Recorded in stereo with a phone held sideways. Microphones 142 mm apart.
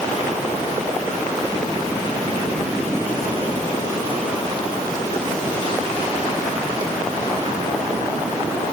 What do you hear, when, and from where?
Only background noise.